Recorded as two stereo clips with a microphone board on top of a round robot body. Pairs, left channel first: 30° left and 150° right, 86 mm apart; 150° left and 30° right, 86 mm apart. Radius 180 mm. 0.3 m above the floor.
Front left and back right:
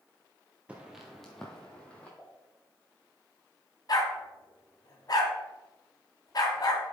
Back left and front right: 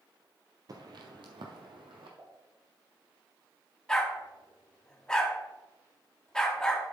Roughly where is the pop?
Ahead right.